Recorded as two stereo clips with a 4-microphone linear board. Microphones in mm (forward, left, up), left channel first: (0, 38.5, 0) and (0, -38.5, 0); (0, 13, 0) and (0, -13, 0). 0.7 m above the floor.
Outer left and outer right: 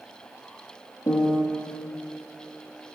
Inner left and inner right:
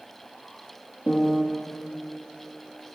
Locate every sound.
1.1 s a piano: 65° left (ahead or behind), 2 m